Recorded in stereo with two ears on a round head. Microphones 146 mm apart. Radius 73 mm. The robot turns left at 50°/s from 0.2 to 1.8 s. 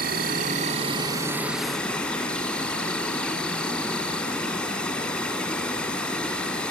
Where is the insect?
105° right, 0.9 m; by 6.7 s 175° left, 0.9 m.